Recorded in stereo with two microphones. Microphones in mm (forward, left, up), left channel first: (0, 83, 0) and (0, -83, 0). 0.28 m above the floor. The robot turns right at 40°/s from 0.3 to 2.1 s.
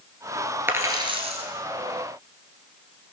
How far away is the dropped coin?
About 1.9 m.